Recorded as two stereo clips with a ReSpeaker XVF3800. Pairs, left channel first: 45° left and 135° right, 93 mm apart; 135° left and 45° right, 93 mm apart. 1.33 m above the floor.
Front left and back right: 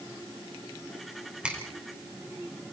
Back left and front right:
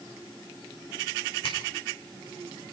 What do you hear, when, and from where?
1.4 s a finger snap: 145° left, 4.5 m